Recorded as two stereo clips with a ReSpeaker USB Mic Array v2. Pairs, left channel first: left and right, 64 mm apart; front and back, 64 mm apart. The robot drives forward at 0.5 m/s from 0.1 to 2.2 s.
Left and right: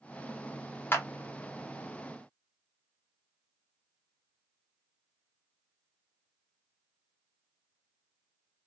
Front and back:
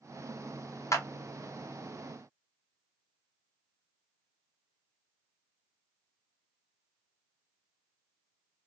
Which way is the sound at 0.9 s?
35° left.